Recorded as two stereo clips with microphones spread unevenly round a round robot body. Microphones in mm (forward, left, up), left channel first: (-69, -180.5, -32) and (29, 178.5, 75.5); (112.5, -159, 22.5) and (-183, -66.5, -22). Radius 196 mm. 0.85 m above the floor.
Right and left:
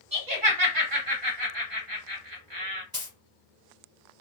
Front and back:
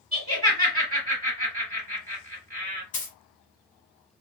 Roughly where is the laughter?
Left.